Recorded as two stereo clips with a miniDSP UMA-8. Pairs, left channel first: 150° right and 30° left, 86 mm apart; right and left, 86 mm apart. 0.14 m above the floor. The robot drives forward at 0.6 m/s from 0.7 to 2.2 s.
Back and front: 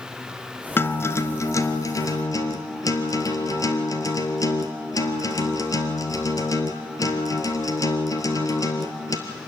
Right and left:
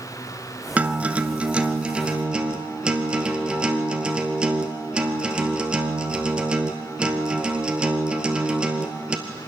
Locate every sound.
0.8 s a guitar: 160° left, 1.1 m; by 9.2 s 170° left, 1.8 m